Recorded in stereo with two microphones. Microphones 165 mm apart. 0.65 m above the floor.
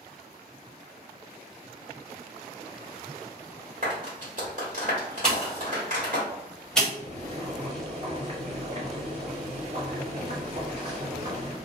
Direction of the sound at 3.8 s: 55° right (ahead or behind).